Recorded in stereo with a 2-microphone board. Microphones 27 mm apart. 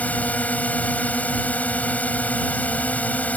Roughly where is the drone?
Left.